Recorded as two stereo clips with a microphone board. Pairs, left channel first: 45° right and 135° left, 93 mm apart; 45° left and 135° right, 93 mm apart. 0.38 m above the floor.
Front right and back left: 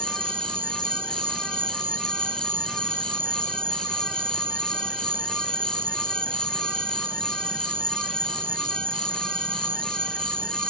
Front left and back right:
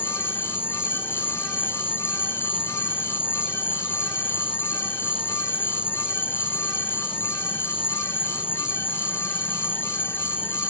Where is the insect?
115° left.